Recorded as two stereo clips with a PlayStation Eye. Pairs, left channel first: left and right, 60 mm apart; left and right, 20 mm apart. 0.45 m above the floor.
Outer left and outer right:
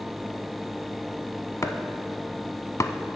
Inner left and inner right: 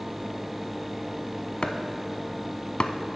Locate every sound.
1.6 s chopping: 55° left (ahead or behind), 0.6 m